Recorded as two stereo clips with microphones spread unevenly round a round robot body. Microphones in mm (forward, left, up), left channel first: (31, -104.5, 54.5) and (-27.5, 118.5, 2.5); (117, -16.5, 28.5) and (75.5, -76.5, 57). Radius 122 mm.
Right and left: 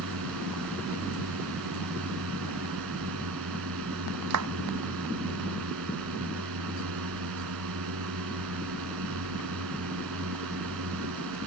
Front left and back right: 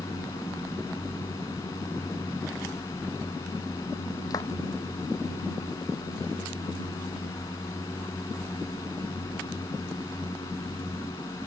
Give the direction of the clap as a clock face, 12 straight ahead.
8 o'clock.